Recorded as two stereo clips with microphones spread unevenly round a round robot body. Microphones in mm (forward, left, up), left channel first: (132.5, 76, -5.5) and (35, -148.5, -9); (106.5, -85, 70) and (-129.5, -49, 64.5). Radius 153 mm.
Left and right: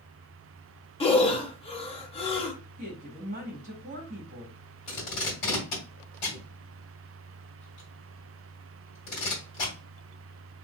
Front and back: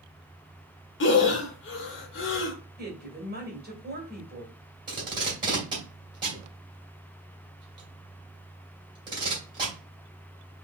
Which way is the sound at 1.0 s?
5° left.